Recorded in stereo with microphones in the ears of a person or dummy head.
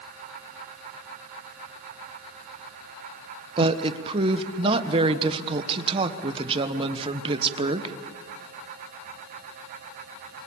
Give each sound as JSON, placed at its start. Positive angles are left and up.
{"t": 3.6, "sound": "a woman speaking", "side_deg": -30, "distance_m": 1.2}